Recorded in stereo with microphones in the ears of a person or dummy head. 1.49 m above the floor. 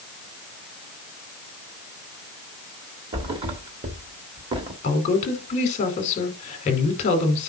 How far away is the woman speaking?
About 4.5 m.